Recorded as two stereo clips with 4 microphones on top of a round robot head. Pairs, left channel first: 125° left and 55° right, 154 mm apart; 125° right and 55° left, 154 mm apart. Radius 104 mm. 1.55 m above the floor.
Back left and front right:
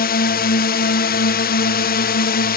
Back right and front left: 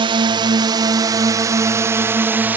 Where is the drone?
115° left; by 2.6 s 135° left.